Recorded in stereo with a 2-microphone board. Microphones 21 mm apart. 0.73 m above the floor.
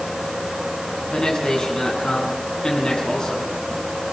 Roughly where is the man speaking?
Left.